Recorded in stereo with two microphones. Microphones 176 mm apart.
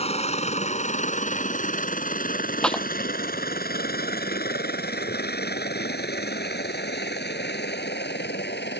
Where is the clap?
5° left (ahead or behind).